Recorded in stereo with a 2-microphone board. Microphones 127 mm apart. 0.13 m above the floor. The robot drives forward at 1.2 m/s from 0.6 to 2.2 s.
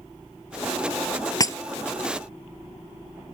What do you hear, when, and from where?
1.4 s breaking glass: 30° left (ahead or behind); by 1.6 s 25° left (ahead or behind)